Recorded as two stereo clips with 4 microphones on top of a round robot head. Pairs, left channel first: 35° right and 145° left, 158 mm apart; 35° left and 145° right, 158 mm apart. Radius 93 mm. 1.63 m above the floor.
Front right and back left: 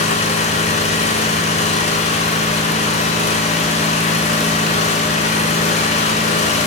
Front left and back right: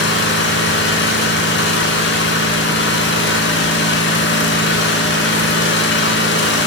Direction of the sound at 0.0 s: 15° left.